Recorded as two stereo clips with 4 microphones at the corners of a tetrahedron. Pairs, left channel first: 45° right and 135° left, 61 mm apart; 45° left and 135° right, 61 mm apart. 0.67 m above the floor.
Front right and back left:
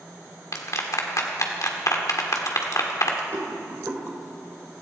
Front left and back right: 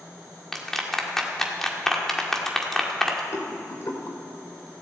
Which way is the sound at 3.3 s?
80° left.